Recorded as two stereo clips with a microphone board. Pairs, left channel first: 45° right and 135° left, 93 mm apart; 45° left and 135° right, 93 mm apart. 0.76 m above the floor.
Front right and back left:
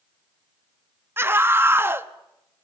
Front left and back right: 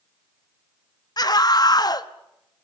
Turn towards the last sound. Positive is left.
turn(degrees=75)